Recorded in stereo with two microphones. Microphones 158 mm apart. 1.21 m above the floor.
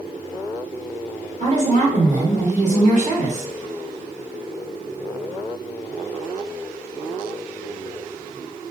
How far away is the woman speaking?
About 0.9 m.